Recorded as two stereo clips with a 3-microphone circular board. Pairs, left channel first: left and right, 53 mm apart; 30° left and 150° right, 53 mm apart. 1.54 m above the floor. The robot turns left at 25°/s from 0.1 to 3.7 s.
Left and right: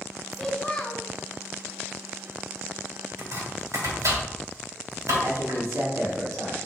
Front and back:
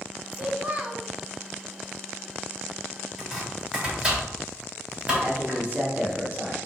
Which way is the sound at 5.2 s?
90° right.